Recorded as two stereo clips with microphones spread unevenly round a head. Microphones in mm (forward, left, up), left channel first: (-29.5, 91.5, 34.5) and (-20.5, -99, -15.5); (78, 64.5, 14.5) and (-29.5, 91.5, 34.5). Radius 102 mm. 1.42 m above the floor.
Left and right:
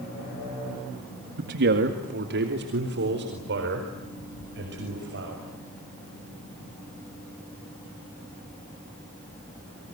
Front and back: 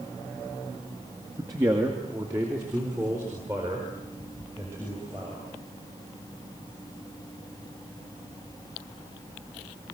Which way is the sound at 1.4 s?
125° right.